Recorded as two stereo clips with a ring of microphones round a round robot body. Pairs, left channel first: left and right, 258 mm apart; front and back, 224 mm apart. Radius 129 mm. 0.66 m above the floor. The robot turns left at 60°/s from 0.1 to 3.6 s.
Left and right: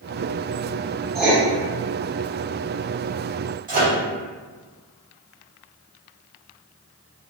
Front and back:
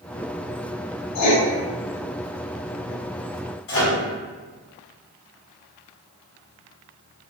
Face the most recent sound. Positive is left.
turn(degrees=-30)